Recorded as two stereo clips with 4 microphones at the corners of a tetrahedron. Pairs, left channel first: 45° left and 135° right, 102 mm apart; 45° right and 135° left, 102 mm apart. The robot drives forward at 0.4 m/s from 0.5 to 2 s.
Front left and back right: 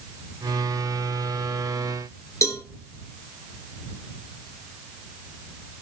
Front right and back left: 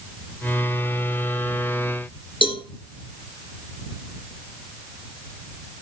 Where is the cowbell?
15° right, 1.9 m.